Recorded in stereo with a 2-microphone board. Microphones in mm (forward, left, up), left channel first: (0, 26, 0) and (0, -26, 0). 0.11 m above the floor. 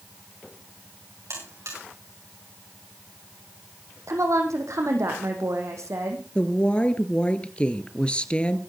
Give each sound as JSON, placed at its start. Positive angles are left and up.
{"t": 1.3, "sound": "a buzzer", "side_deg": -70, "distance_m": 9.0}
{"t": 4.1, "sound": "a woman speaking", "side_deg": -75, "distance_m": 4.5}
{"t": 6.3, "sound": "a woman speaking", "side_deg": 20, "distance_m": 1.6}